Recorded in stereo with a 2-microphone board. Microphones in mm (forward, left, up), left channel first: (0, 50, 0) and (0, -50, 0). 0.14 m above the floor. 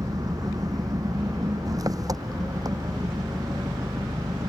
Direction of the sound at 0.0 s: 40° right (ahead or behind).